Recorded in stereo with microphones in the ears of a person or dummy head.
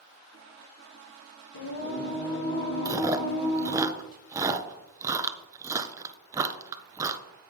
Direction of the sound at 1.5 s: 65° left (ahead or behind).